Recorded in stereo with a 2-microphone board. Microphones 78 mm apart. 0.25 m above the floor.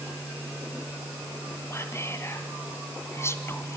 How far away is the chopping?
No chopping in this recording.